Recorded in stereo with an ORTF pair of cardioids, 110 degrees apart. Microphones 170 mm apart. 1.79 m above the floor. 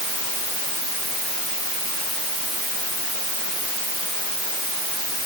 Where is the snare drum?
I don't hear a snare drum.